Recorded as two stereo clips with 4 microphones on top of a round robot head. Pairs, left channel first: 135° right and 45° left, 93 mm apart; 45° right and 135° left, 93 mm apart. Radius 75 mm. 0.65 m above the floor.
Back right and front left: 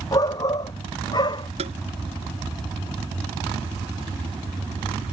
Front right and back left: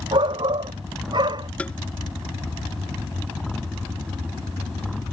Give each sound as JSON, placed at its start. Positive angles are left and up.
{"t": 0.1, "sound": "a shout", "azimuth_deg": 175}
{"t": 1.6, "sound": "tapping", "azimuth_deg": 35}